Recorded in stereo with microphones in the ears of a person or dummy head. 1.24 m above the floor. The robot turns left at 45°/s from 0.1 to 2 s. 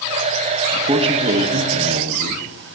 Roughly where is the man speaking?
Ahead.